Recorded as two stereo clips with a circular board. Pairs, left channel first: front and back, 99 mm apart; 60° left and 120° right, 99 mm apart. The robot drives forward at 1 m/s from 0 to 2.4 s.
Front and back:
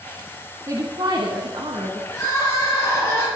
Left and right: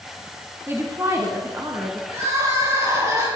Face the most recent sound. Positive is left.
turn(degrees=-60)